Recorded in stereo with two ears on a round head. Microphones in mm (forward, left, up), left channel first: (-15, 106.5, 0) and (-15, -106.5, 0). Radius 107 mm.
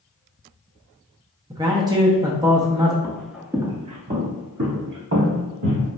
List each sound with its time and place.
1.5 s a man speaking: 15° right (ahead or behind), 0.6 m
3.0 s footsteps: 10° left (ahead or behind), 0.7 m; by 5.9 s 65° right (ahead or behind), 1.5 m